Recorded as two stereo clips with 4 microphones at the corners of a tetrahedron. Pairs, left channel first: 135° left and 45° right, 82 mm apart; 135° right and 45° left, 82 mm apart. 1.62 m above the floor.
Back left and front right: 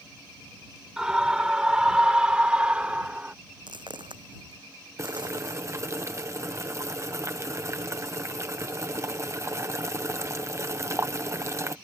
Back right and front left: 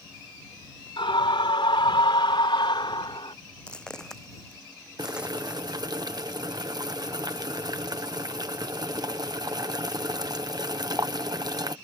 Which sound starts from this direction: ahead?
Boiling, at 5.0 s.